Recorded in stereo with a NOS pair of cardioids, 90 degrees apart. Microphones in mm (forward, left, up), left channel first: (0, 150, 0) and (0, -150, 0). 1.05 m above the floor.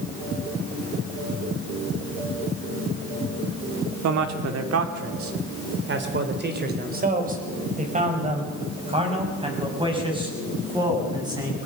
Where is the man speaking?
70° right, 2.5 m; by 11.7 s 15° right, 9 m.